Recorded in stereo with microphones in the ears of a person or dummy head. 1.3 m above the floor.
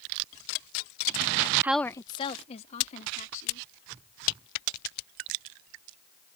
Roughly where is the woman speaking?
Centre.